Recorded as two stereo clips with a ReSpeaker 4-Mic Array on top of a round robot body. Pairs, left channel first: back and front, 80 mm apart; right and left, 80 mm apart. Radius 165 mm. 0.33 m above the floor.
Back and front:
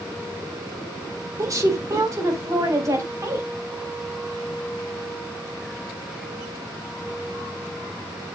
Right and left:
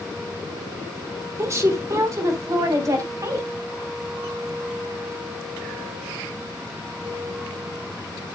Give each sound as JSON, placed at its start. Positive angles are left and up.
{"t": 1.4, "sound": "a woman speaking", "azimuth_deg": 45, "distance_m": 2.5}